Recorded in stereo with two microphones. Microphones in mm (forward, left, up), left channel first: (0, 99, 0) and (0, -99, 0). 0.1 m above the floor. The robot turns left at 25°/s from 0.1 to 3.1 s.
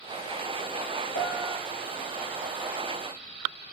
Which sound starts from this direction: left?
A piano, at 1.1 s.